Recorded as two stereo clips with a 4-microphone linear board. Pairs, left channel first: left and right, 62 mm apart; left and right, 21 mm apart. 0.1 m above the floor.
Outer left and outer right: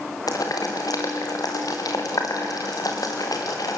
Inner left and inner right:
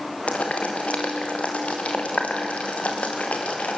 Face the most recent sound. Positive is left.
turn(degrees=75)  # may be behind; listen again after turning